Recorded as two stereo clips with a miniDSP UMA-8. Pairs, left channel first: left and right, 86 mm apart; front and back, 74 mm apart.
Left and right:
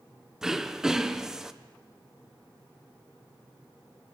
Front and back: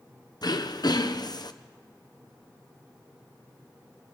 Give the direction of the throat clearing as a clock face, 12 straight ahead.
12 o'clock.